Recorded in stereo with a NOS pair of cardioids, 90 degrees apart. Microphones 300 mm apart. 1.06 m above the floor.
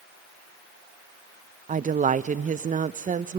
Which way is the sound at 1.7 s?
25° right.